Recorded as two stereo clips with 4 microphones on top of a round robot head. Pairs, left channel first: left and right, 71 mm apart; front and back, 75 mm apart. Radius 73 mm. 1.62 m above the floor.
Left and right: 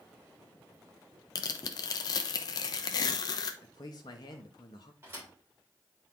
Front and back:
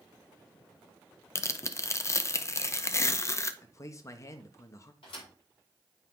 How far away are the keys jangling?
I don't hear keys jangling.